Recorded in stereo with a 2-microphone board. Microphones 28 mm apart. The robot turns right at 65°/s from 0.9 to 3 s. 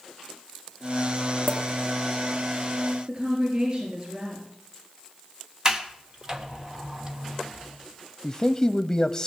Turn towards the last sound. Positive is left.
turn(degrees=10)  # may be behind; listen again after turning